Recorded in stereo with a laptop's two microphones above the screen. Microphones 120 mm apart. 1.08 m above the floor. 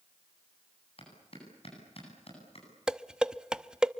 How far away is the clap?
About 9.5 m.